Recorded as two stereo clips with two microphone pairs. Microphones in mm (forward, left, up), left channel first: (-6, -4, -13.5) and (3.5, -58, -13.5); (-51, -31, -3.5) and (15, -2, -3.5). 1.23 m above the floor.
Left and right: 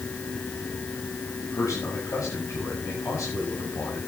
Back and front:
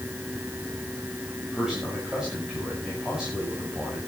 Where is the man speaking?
105° left, 7.5 m.